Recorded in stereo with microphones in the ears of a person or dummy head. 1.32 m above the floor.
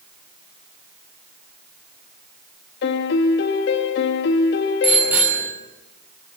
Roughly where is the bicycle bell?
Centre.